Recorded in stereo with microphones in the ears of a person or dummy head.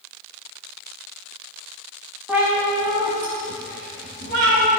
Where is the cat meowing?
5° right (ahead or behind), 1.2 m; by 4.7 s 55° right (ahead or behind), 1.5 m.